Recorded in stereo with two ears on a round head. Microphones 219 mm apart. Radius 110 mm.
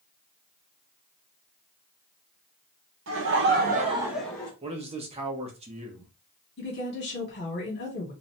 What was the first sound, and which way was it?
Laughter, 55° right (ahead or behind).